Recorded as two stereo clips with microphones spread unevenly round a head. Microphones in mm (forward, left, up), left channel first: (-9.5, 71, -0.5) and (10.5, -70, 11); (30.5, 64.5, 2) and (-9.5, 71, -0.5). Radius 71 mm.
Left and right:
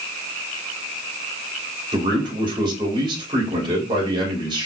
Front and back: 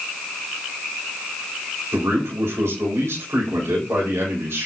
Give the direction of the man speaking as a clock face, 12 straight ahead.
5 o'clock.